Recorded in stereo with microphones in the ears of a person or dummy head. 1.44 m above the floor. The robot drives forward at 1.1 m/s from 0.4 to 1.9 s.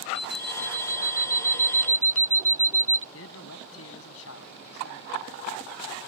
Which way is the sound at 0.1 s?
55° left (ahead or behind).